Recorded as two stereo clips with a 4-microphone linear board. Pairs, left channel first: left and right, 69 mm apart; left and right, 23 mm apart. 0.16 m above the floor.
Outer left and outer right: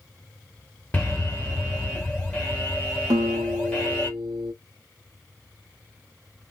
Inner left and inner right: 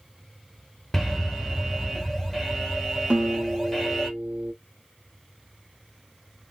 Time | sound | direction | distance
0.9 | an alarm | 25° left (ahead or behind) | 2 m
3.1 | a guitar | 70° right (ahead or behind) | 0.9 m